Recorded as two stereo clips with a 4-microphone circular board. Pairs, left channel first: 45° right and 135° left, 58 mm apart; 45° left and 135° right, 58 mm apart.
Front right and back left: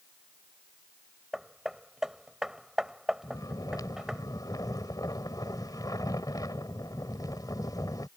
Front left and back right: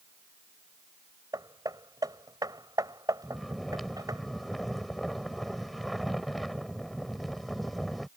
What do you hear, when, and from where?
1.3 s hammering: 140° right
3.2 s snoring: 45° right